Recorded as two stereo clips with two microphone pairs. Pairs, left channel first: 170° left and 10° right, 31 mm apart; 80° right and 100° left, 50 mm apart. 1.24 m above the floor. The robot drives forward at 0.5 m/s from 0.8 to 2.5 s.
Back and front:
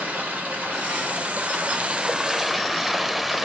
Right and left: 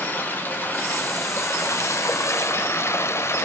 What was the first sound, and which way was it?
Running water, 30° right.